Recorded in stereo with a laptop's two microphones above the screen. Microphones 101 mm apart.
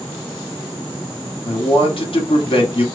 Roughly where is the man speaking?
Left.